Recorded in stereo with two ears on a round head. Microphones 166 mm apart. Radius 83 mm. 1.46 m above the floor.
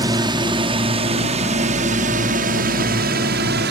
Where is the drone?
20° right (ahead or behind); by 3.7 s 60° right (ahead or behind).